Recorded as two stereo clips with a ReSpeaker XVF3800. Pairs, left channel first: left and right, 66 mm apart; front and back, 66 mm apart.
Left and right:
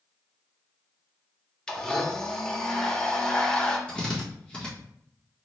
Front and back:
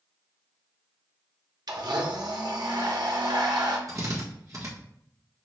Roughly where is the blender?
Behind.